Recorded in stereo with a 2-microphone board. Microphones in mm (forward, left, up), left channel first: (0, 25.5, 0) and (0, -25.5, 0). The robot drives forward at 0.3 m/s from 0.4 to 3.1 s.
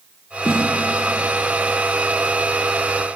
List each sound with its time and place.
0.5 s a snare drum: 65° left (ahead or behind), 3 m